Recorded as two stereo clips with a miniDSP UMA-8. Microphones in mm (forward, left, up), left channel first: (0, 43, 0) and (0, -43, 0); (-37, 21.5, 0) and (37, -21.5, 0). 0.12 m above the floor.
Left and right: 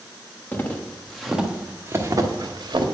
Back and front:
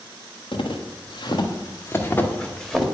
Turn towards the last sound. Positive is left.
turn(degrees=-120)